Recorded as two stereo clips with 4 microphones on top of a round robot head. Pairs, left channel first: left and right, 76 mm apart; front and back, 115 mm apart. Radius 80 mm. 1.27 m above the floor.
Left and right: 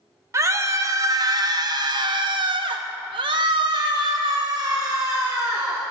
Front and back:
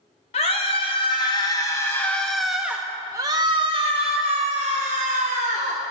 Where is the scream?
45° right, 2 m; by 5.8 s 155° right, 2.5 m.